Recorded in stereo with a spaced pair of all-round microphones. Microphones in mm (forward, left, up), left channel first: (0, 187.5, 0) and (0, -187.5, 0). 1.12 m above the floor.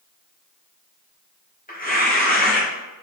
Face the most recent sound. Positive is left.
turn(degrees=25)  # may be behind; listen again after turning